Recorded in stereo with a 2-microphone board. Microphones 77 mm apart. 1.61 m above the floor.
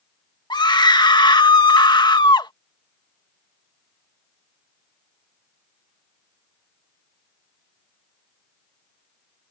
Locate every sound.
0.5 s a scream: 75° left (ahead or behind)